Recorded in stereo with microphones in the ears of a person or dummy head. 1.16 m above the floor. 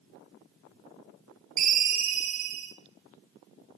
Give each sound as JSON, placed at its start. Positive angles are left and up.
{"t": 1.6, "sound": "a ringtone", "side_deg": -45, "distance_m": 1.3}